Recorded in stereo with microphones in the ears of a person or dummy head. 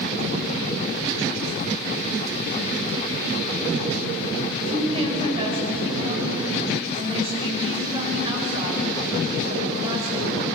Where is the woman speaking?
25° right (ahead or behind), 6.5 m.